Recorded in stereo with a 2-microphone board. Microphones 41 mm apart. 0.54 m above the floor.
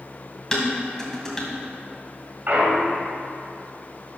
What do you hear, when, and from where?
0.5 s dishes clattering: 10° left (ahead or behind), 2 m
2.5 s a clunk: 50° right (ahead or behind), 1.6 m